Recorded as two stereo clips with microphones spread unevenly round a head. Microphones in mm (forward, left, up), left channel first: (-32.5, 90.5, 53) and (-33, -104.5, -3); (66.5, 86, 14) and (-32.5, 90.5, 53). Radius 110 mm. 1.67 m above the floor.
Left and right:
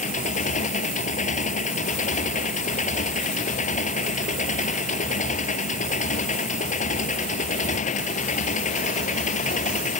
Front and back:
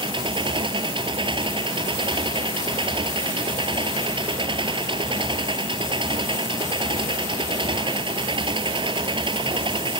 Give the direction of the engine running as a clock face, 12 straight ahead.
7 o'clock.